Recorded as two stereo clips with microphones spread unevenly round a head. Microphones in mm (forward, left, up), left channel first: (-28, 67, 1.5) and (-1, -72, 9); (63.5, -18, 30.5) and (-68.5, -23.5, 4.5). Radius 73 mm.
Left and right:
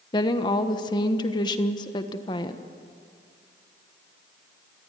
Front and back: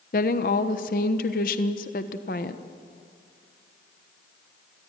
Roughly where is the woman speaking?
Ahead left.